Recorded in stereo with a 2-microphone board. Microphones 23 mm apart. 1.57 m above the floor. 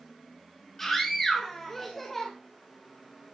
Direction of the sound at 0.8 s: 10° left (ahead or behind).